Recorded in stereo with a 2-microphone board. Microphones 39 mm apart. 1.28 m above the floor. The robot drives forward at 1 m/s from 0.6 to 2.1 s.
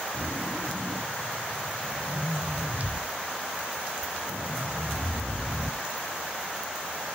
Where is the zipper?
45° right (ahead or behind), 1.2 m; by 5.8 s 40° right (ahead or behind), 1.3 m.